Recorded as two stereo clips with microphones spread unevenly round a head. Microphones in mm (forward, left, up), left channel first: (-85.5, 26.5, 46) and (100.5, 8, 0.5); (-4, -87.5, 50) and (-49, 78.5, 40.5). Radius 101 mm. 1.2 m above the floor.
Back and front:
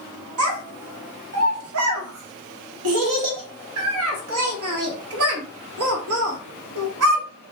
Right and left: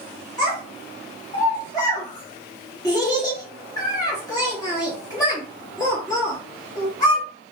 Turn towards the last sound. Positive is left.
turn(degrees=-5)